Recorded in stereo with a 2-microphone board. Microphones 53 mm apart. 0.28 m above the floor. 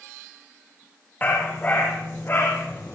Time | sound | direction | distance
1.2 | a dog barking | 30° left (ahead or behind) | 4 m